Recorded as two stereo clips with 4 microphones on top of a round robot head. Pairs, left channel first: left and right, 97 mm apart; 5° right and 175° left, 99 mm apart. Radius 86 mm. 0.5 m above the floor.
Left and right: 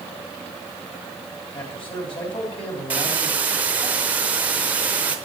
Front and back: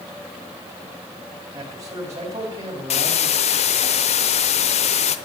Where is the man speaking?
120° left, 3.5 m.